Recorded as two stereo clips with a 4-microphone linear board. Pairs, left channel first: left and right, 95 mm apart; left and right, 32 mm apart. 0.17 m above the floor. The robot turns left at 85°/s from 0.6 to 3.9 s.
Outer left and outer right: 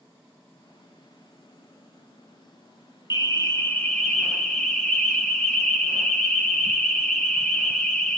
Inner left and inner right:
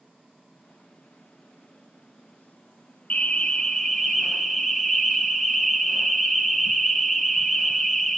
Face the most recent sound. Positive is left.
turn(degrees=10)